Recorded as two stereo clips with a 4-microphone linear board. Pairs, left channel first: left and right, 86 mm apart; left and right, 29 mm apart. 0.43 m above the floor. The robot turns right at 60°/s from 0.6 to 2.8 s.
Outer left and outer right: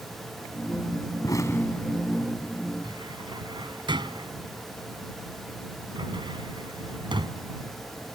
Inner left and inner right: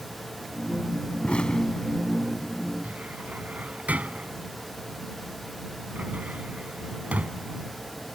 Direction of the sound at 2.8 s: 65° right (ahead or behind).